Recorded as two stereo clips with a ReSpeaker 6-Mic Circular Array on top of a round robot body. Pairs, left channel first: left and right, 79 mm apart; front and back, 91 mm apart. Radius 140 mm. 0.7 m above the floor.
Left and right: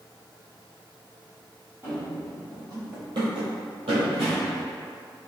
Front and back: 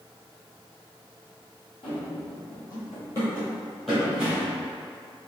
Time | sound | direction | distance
1.8 | running footsteps | 30° right | 1.5 m